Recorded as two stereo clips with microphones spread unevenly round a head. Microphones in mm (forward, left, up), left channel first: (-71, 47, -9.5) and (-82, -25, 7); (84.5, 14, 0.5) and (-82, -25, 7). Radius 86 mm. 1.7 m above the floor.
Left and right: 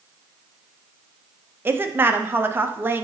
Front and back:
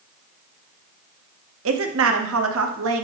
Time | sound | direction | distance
1.6 | a woman speaking | 160° right | 0.9 m